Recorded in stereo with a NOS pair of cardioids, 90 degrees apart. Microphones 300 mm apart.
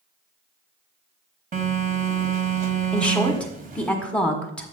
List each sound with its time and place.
1.5 s a phone buzzing: 30° right, 1.3 m
2.9 s a woman speaking: 5° left, 1.3 m